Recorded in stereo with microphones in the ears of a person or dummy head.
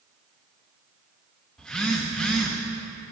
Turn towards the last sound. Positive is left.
turn(degrees=0)  # may be behind; listen again after turning